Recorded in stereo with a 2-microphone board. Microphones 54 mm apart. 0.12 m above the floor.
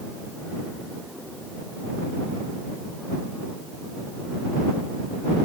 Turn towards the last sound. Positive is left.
No sound to turn to.